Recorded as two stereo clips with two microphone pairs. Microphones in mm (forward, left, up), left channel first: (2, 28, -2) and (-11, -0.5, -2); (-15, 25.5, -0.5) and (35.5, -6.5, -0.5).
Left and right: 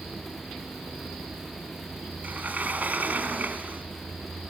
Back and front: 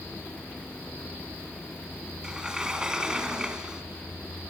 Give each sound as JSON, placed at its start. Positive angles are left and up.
{"t": 2.2, "sound": "a sliding door", "azimuth_deg": -110, "distance_m": 2.5}